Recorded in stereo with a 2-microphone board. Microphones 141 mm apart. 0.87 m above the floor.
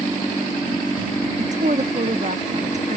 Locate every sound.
1.4 s a woman speaking: 55° right (ahead or behind)